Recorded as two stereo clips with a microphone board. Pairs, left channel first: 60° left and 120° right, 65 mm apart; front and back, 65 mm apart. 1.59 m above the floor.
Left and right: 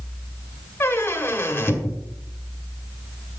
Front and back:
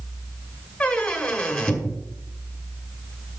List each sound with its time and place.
0.8 s a squeak: 65° left, 1.3 m